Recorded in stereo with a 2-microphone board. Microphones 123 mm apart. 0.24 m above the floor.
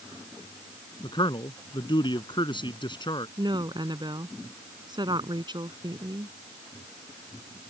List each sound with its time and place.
1.0 s a man speaking: 40° left (ahead or behind)
3.4 s a woman speaking: 40° right (ahead or behind)